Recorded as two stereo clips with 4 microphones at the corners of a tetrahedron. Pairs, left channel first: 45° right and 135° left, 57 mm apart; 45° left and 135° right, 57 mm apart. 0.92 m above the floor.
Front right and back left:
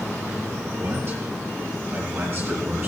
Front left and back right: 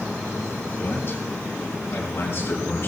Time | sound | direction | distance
0.8 | a man speaking | 90° left | 6.5 m